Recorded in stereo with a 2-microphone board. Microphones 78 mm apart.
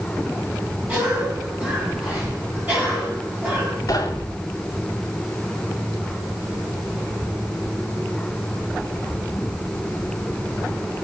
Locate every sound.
0.9 s a cough: 20° right (ahead or behind), 8 m
3.9 s knocking: 45° left (ahead or behind), 2.5 m